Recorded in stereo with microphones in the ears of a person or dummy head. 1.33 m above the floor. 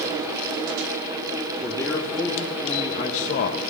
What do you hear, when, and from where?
1.6 s a man speaking: 10° left (ahead or behind), 2.5 m; by 3.6 s 55° left (ahead or behind), 1.2 m